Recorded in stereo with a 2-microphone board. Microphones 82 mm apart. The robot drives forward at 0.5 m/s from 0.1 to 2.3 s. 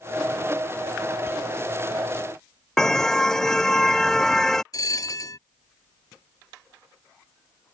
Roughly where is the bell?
Left.